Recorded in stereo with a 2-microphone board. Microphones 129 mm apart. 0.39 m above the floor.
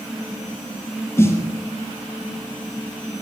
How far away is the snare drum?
About 1.5 m.